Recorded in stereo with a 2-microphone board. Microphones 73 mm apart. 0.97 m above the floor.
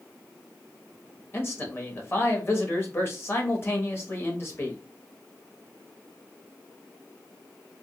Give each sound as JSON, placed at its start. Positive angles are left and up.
{"t": 1.3, "sound": "a man speaking", "side_deg": 35, "distance_m": 1.1}